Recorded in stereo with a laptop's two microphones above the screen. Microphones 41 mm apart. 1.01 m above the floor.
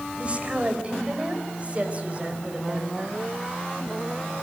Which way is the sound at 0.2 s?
35° right (ahead or behind).